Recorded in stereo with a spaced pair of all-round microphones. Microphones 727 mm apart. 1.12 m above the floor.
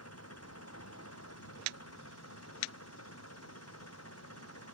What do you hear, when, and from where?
0.0 s an engine running: 20° left (ahead or behind)